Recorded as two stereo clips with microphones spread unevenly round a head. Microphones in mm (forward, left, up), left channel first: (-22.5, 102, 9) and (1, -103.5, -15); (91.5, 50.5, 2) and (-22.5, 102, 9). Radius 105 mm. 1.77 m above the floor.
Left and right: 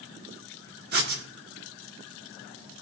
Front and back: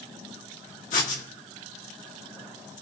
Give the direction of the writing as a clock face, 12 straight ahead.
1 o'clock.